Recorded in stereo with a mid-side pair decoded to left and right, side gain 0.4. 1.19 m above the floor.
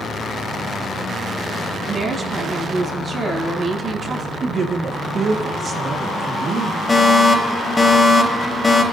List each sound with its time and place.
1.9 s a woman speaking: 50° right, 8.5 m
4.4 s a man speaking: 55° right, 1.8 m
6.9 s a fire alarm: 25° left, 3.5 m